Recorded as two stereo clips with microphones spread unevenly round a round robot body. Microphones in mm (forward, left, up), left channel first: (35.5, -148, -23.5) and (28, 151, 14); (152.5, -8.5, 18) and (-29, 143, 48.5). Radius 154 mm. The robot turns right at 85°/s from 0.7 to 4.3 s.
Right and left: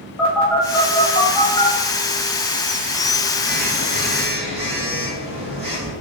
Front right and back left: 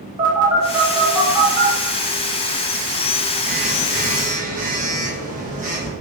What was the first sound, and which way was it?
A phone buzzing, 150° right.